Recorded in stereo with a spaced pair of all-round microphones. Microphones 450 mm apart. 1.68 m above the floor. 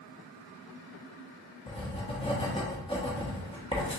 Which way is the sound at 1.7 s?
10° left (ahead or behind).